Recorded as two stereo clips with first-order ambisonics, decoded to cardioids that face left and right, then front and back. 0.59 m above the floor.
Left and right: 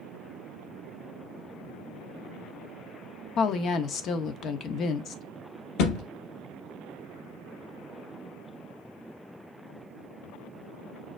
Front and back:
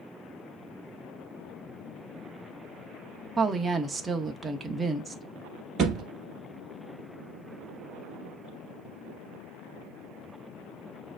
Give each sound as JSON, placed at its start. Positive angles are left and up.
{"t": 3.4, "sound": "a woman speaking", "azimuth_deg": 105, "distance_m": 0.7}
{"t": 5.8, "sound": "a thud", "azimuth_deg": 120, "distance_m": 1.6}